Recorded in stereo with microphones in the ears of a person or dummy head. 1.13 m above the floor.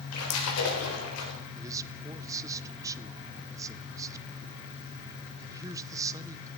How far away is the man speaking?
About 0.6 m.